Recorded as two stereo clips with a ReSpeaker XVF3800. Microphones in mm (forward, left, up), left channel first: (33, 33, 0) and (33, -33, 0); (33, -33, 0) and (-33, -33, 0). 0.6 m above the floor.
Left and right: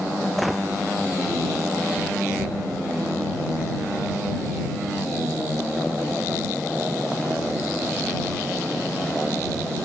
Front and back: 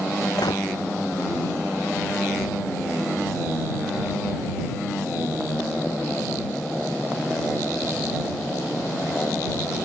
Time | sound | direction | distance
0.4 | a gunshot | straight ahead | ?